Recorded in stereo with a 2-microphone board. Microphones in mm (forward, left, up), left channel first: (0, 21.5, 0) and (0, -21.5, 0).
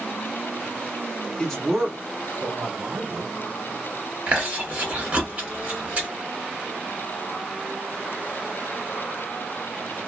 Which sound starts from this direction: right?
Chewing, at 4.3 s.